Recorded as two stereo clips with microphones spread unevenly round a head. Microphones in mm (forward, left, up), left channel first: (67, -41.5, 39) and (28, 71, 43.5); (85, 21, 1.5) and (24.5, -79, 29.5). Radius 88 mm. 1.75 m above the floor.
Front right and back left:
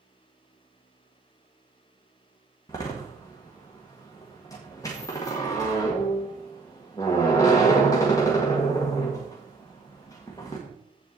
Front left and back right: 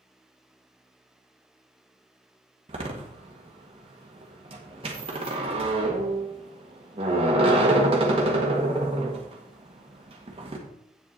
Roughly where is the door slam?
Behind right.